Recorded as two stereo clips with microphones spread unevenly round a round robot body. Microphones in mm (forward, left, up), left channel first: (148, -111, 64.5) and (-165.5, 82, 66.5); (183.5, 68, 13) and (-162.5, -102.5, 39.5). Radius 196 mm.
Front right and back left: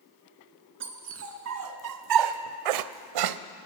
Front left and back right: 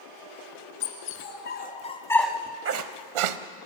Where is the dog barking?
85° left, 2.5 m; by 3.4 s 170° right, 1.0 m.